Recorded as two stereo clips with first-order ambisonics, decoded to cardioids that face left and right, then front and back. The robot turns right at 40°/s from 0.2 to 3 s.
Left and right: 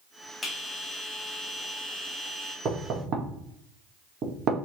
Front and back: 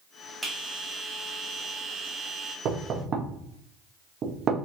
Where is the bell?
130° left, 0.7 m; by 2.5 s 145° right, 0.7 m.